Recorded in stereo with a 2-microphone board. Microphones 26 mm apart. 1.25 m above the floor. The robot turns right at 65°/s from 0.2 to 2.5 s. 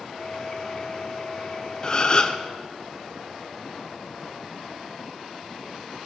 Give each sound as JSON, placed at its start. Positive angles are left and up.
{"t": 1.8, "sound": "a gasp", "azimuth_deg": 60, "distance_m": 0.6}